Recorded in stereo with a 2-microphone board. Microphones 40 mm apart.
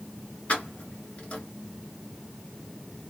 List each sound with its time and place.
0.5 s keys jangling: 35° left (ahead or behind), 1.3 m